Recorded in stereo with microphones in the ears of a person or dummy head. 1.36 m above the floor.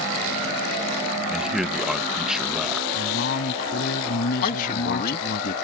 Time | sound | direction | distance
1.3 | a man speaking | centre (ahead or behind) | ?
2.9 | a man speaking | 55° left (ahead or behind) | ?
4.4 | a man speaking | 40° left (ahead or behind) | ?